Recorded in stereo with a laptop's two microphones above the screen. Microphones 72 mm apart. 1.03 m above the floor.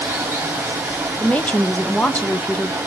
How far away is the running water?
About 1.9 m.